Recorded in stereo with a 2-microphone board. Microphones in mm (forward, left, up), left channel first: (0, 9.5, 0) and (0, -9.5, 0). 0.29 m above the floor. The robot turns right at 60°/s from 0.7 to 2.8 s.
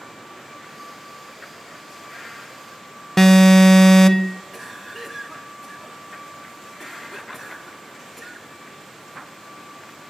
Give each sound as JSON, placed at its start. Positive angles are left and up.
{"t": 3.2, "sound": "an alarm", "side_deg": 20, "distance_m": 0.6}
{"t": 4.5, "sound": "a cough", "side_deg": 5, "distance_m": 3.5}